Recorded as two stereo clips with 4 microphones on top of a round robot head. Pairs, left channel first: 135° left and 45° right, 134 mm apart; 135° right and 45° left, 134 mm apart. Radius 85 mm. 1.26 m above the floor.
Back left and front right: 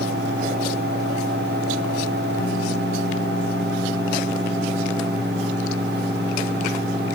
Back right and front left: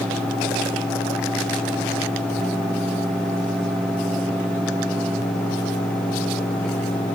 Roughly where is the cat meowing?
I don't hear a cat meowing.